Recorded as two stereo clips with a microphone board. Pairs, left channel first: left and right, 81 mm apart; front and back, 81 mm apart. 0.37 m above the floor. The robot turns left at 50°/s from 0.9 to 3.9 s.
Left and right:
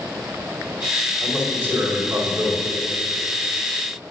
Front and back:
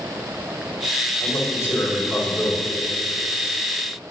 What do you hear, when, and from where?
1.2 s a man speaking: 15° right, 1.6 m; by 2.6 s 85° right, 1.6 m